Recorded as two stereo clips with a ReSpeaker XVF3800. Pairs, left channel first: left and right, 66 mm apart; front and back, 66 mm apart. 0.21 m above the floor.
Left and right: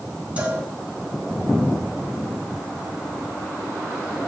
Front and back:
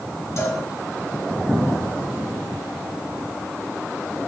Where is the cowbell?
25° right, 2.5 m.